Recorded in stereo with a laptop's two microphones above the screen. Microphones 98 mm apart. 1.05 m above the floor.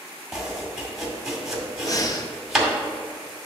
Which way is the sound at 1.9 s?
35° left (ahead or behind).